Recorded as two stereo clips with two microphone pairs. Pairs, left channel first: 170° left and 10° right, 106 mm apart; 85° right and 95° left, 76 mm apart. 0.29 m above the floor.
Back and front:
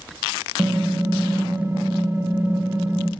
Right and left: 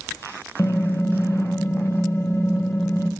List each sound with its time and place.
0.6 s typing on a keyboard: 60° right, 0.5 m